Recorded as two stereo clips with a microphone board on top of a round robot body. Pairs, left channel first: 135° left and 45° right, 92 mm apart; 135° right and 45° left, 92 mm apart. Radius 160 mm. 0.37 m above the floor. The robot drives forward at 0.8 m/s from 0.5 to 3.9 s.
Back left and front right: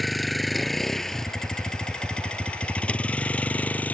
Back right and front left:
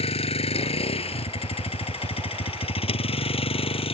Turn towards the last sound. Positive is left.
turn(degrees=-150)